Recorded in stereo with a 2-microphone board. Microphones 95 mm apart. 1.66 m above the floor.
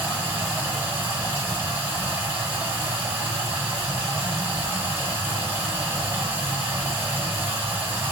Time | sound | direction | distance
0.0 | running water | 15° right (ahead or behind) | 1.9 m